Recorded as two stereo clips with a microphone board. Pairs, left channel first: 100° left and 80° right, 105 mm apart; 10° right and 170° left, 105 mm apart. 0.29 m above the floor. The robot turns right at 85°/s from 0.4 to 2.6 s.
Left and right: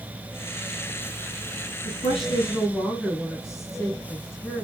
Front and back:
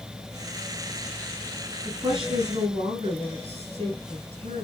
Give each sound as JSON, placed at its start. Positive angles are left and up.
{"t": 1.9, "sound": "a woman speaking", "azimuth_deg": 105, "distance_m": 8.0}